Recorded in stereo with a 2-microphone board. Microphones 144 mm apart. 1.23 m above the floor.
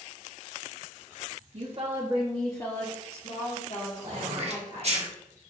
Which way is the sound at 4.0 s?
50° right (ahead or behind).